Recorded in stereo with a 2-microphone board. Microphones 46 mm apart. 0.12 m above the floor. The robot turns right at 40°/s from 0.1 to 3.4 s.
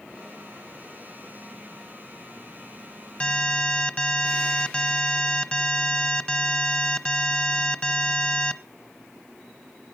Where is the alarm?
20° left (ahead or behind), 0.8 m.